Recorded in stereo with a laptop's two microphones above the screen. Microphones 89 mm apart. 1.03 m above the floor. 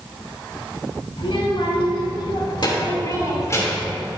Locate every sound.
1.2 s a child speaking: 85° left, 3.5 m; by 3.9 s 25° left (ahead or behind), 3 m